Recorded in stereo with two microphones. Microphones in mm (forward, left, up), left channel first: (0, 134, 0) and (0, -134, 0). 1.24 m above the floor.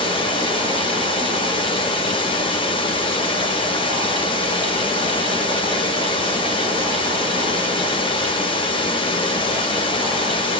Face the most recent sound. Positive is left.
turn(degrees=20)  # may be behind; listen again after turning